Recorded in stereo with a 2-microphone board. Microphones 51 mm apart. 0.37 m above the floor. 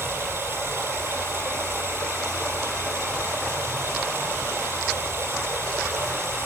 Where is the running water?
55° right (ahead or behind), 5 m.